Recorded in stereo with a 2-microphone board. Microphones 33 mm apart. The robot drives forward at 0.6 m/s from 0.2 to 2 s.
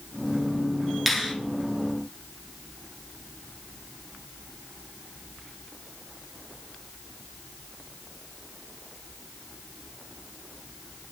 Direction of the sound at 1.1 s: Centre (ahead or behind).